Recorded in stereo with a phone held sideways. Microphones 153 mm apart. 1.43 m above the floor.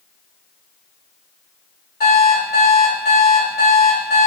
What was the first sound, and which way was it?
An alarm clock, 80° left.